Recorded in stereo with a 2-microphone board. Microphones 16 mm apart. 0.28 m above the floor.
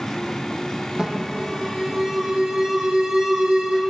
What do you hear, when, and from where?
1.0 s an alarm: 55° right (ahead or behind), 7 m